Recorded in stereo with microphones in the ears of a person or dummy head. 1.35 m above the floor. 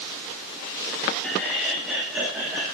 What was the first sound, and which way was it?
Laughter, 5° left (ahead or behind).